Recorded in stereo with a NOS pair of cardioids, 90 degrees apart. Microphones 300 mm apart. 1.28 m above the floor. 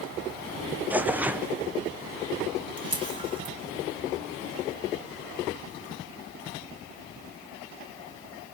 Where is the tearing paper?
5° right, 0.5 m.